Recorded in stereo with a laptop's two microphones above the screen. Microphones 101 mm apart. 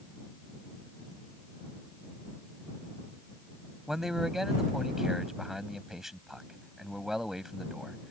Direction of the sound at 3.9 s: 5° right (ahead or behind).